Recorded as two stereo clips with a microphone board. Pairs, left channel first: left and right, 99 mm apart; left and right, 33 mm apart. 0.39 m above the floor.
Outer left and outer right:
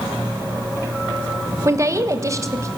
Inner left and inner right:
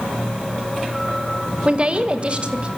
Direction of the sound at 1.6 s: 30° right (ahead or behind).